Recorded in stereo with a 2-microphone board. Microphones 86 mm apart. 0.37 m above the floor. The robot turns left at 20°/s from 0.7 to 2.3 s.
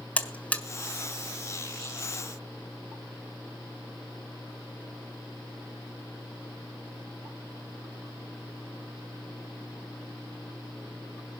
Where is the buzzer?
15° left (ahead or behind), 1.4 m.